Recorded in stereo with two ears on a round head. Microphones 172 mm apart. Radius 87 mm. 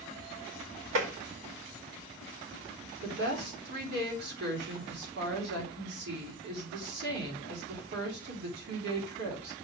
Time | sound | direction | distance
0.9 | tapping | 75° right (ahead or behind) | 2 m
3.0 | a woman speaking | 60° right (ahead or behind) | 3.5 m